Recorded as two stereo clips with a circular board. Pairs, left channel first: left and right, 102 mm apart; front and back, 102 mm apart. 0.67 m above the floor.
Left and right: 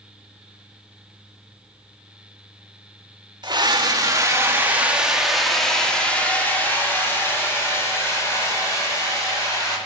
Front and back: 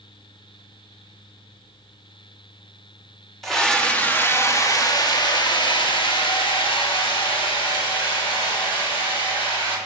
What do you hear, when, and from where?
3.4 s a scream: 85° right, 1.3 m; by 9.8 s 35° left, 4 m